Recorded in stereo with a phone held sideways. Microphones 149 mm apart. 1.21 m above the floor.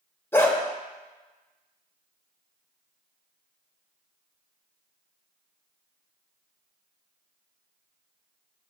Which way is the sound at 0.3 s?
15° left (ahead or behind).